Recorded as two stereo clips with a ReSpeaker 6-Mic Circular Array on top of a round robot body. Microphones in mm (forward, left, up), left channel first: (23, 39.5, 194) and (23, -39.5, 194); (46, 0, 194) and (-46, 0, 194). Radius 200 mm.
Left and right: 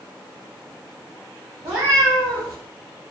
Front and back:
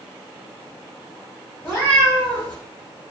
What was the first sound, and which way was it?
A cat meowing, 70° right.